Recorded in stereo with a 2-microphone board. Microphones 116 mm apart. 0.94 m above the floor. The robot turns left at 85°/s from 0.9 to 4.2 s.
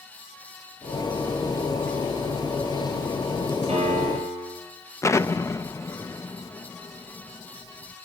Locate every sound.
3.7 s a piano: 60° right, 9 m; by 4.6 s 100° right, 9 m
5.0 s an explosion: 25° left (ahead or behind), 0.7 m